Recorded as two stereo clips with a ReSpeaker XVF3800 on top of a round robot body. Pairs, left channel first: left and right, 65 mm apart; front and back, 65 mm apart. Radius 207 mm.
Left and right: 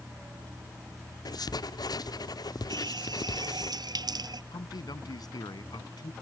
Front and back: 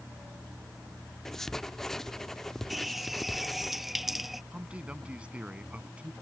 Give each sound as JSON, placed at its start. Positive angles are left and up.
{"t": 1.2, "sound": "writing", "azimuth_deg": 85}
{"t": 2.7, "sound": "a running tap", "azimuth_deg": -90}
{"t": 4.5, "sound": "a man speaking", "azimuth_deg": 105}